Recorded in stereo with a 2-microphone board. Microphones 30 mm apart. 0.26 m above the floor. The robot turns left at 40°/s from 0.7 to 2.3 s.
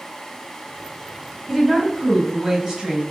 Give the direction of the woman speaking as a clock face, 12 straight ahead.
12 o'clock.